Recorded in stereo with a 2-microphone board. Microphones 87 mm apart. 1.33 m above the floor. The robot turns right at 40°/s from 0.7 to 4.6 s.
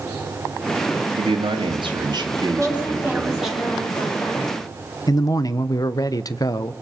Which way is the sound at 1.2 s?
95° right.